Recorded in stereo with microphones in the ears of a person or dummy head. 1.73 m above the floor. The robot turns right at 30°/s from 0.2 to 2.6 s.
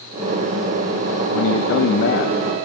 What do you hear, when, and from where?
1.3 s a man speaking: 85° left, 1.4 m; by 2.7 s 125° left, 1.4 m